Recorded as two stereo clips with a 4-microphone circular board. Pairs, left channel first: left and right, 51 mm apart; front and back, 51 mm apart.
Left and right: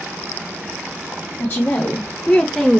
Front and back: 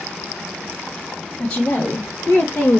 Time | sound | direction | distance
1.4 | a woman speaking | 50° left | 1.1 m